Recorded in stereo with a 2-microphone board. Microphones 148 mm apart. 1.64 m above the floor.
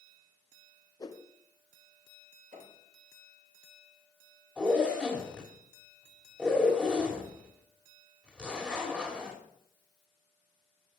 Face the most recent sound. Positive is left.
turn(degrees=-5)  # may be behind; listen again after turning